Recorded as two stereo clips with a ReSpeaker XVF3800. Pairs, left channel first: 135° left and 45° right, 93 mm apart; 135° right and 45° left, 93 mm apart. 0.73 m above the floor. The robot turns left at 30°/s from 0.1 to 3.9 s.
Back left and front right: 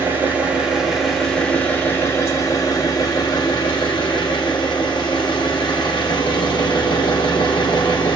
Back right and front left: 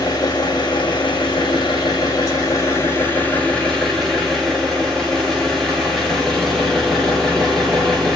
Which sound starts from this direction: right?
An engine running, at 0.0 s.